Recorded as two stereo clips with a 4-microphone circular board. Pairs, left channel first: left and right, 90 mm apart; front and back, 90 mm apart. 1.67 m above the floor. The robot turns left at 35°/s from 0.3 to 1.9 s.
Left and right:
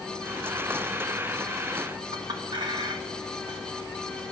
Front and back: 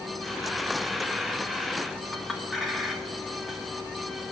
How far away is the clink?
About 1.7 m.